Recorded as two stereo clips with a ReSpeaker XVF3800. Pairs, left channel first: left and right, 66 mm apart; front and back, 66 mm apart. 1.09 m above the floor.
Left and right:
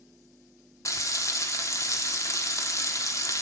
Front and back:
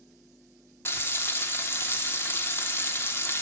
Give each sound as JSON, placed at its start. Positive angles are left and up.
{"t": 0.8, "sound": "frying", "azimuth_deg": 55, "distance_m": 1.2}